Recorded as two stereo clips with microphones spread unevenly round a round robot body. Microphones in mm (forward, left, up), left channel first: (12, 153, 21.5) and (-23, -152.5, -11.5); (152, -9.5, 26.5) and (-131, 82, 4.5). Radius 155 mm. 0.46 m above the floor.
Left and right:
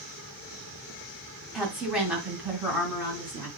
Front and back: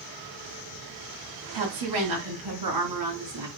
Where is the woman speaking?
175° left, 2.5 m; by 3.5 s straight behind, 3.5 m.